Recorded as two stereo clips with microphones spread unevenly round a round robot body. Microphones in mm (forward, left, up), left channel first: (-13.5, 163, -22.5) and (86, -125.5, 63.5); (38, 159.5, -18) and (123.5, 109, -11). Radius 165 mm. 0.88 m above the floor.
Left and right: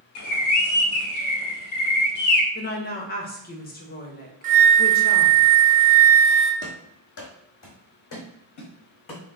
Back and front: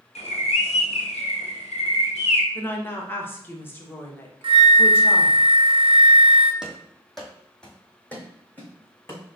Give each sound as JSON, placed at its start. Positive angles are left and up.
{"t": 0.1, "sound": "a bird", "azimuth_deg": 145, "distance_m": 0.8}
{"t": 2.5, "sound": "a woman speaking", "azimuth_deg": 95, "distance_m": 1.1}
{"t": 4.4, "sound": "a flute", "azimuth_deg": -20, "distance_m": 0.6}
{"t": 6.6, "sound": "running footsteps", "azimuth_deg": 50, "distance_m": 1.4}